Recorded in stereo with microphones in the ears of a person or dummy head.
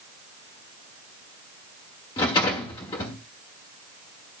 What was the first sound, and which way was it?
A rattle, 20° left (ahead or behind).